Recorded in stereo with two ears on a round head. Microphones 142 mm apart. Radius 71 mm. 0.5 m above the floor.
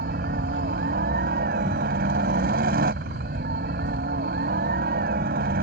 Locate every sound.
0.0 s a helicopter: 60° right (ahead or behind)